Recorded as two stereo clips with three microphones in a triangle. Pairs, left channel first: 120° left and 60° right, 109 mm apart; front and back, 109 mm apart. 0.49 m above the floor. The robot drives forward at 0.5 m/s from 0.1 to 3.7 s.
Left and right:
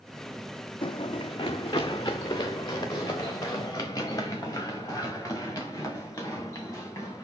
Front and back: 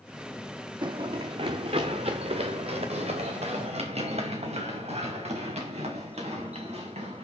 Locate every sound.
0.8 s running footsteps: 145° left, 0.9 m; by 7.2 s 175° right, 7 m